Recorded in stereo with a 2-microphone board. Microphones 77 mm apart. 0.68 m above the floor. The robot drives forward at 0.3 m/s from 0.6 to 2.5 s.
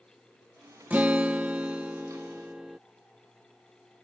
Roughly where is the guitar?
Right.